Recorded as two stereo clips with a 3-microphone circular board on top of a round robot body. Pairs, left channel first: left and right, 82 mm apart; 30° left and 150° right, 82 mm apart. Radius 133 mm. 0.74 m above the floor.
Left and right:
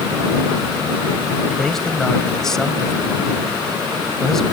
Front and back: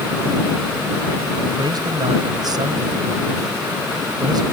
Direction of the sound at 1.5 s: 175° left.